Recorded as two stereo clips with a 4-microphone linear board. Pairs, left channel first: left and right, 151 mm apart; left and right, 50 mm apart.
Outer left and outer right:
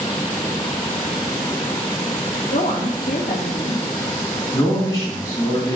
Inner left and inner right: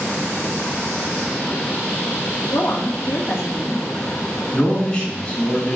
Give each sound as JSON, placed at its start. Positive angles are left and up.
{"t": 2.5, "sound": "a woman speaking", "side_deg": 80, "distance_m": 1.9}
{"t": 4.5, "sound": "a man speaking", "side_deg": 20, "distance_m": 3.0}